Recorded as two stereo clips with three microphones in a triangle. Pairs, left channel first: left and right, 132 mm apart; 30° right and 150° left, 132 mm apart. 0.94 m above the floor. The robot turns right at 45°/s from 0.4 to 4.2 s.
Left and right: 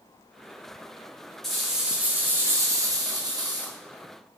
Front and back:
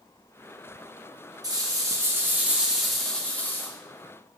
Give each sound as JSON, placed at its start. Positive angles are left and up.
{"t": 1.4, "sound": "a rattle", "azimuth_deg": 175, "distance_m": 0.5}